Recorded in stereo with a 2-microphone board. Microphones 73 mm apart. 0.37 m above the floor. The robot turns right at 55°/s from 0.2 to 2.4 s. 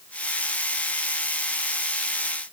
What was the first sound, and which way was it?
Only background noise.